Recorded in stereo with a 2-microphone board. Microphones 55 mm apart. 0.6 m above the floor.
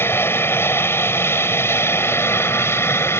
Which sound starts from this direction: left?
An aircraft, at 0.0 s.